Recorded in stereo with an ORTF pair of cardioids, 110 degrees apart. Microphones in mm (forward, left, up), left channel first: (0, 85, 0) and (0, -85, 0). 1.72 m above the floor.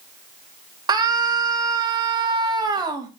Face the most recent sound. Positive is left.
turn(degrees=-25)